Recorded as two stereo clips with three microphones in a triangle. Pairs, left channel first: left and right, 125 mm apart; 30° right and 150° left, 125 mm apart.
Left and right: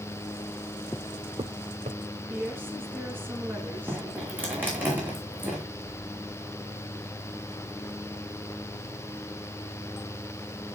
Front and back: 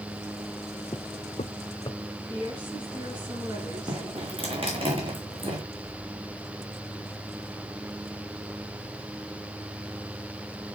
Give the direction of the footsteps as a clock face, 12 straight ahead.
11 o'clock.